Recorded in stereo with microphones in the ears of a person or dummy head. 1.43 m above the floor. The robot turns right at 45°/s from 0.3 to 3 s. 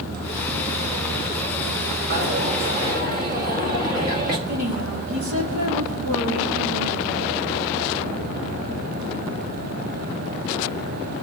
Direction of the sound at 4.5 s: 75° right (ahead or behind).